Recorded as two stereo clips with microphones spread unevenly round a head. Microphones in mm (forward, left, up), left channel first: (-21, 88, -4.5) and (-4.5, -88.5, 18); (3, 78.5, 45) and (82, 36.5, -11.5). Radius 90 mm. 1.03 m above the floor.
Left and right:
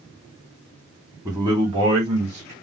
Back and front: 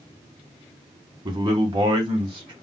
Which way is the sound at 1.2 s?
10° right.